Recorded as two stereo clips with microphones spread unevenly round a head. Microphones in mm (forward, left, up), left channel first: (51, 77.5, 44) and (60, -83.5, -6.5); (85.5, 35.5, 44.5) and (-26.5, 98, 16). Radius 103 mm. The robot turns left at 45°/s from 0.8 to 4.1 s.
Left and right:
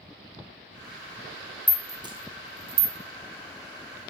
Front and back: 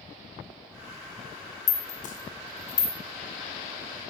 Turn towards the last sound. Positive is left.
turn(degrees=-110)